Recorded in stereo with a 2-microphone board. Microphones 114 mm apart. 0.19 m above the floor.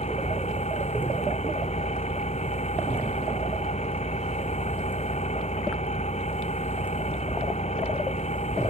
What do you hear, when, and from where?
0.0 s an engine running: 75° left (ahead or behind)